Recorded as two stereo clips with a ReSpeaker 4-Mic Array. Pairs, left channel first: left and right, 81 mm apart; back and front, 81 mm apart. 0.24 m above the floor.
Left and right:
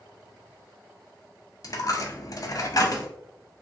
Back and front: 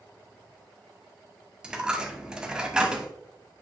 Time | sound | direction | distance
1.6 | a dropped coin | 75° left | 0.7 m